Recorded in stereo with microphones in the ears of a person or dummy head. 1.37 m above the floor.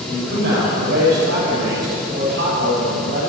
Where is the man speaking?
60° right (ahead or behind), 6.5 m.